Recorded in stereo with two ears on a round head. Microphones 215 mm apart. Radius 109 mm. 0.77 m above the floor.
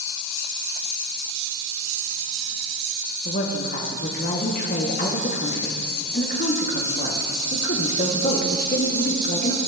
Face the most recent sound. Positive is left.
turn(degrees=40)  # may be behind; listen again after turning